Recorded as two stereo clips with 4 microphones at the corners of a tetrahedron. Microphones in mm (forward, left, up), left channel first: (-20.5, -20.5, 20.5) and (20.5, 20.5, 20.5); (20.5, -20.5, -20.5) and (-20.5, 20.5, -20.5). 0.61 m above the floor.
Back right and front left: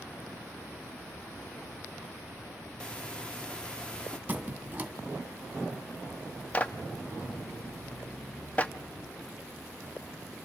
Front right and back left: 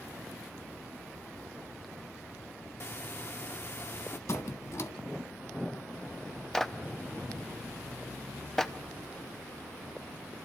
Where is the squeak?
20° right, 1.9 m.